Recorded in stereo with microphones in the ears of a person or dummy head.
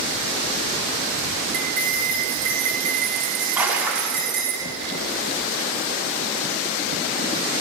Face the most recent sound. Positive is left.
turn(degrees=-10)  # may be behind; listen again after turning